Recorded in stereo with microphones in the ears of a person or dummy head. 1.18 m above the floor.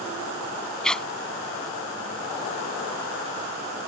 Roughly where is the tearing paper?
Centre.